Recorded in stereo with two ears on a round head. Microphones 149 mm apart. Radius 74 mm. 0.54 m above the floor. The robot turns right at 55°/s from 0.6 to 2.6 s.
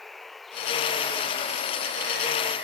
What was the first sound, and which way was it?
Running water, straight behind.